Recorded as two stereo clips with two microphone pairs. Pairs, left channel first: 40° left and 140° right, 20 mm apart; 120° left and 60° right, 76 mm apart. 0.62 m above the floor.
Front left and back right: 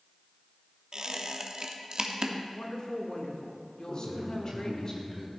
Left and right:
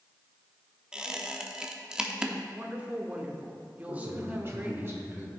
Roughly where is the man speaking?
Ahead.